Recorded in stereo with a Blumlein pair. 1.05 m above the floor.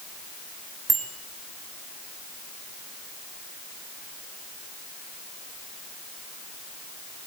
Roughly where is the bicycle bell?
Ahead.